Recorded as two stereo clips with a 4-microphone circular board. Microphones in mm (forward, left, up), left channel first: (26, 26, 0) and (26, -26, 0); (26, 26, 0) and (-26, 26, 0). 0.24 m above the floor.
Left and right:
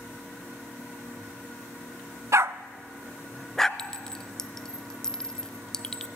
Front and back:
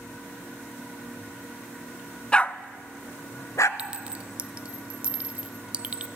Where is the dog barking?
70° right, 0.5 m; by 3.7 s 10° left, 0.9 m.